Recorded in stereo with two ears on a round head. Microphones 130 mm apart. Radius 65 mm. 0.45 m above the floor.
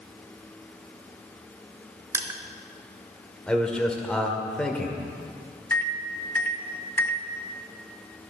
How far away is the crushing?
About 0.8 m.